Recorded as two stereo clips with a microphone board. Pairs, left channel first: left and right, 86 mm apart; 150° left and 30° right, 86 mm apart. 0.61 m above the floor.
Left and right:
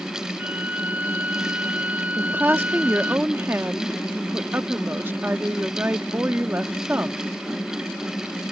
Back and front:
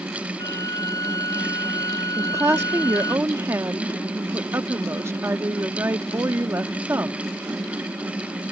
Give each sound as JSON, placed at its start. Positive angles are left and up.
{"t": 0.4, "sound": "a violin", "azimuth_deg": -160}
{"t": 2.2, "sound": "a woman speaking", "azimuth_deg": -55}